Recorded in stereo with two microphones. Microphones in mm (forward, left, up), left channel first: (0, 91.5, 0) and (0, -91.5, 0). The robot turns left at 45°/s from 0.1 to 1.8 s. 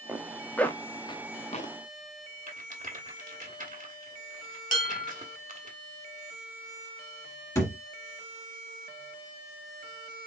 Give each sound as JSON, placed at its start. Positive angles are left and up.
{"t": 0.1, "sound": "a zipper", "side_deg": -10, "distance_m": 0.6}
{"t": 2.5, "sound": "a rattle", "side_deg": -45, "distance_m": 1.4}
{"t": 4.7, "sound": "dishes clattering", "side_deg": 55, "distance_m": 1.9}
{"t": 7.5, "sound": "a thud", "side_deg": 20, "distance_m": 1.6}